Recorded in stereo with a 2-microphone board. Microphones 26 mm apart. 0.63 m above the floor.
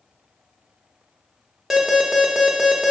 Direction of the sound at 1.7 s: 10° right (ahead or behind).